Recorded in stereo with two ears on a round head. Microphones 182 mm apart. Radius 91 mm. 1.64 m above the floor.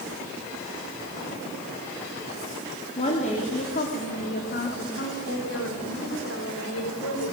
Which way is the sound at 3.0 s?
30° left (ahead or behind).